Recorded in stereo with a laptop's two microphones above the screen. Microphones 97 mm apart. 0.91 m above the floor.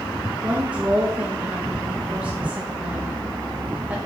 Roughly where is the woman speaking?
Centre.